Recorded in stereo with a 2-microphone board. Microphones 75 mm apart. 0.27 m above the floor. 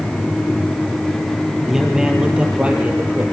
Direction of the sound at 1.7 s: 5° right (ahead or behind).